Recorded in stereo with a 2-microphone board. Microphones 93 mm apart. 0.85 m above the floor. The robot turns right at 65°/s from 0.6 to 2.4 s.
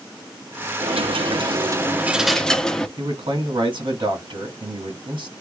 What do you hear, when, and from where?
0.8 s a dropped coin: 100° right, 0.7 m; by 2.9 s 5° left, 0.7 m
3.0 s a man speaking: 60° right (ahead or behind), 2 m